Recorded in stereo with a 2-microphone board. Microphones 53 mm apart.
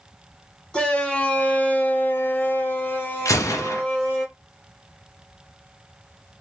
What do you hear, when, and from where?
0.7 s a shout: 15° left (ahead or behind), 1.0 m; by 4.2 s 25° left (ahead or behind), 1.3 m
3.2 s a gunshot: 75° left (ahead or behind), 0.6 m